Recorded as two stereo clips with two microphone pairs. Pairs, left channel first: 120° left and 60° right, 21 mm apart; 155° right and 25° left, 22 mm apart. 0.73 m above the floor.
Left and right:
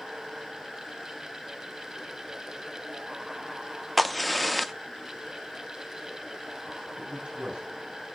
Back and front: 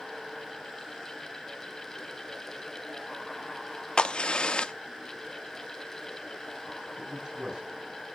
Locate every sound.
4.0 s a crack: 150° right, 0.6 m
7.0 s a man speaking: 30° right, 5.5 m